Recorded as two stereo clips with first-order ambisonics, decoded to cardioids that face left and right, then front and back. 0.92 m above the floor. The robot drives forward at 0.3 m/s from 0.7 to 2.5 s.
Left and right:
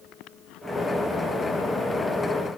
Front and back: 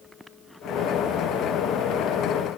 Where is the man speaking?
No man speaking in this recording.